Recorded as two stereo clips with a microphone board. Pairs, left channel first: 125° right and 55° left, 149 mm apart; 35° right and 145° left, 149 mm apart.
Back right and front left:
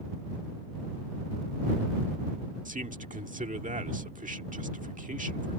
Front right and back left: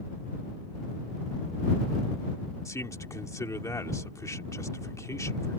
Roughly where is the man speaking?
Ahead left.